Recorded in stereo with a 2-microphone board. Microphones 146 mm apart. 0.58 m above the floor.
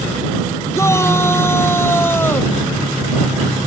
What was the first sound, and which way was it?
A shout, 20° left (ahead or behind).